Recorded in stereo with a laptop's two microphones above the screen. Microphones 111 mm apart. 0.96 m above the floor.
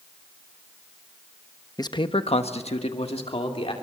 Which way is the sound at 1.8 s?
35° left (ahead or behind).